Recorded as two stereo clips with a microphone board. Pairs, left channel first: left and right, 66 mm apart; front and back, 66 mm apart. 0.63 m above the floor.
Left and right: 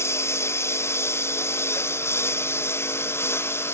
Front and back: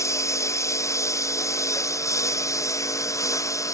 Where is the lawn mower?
40° left.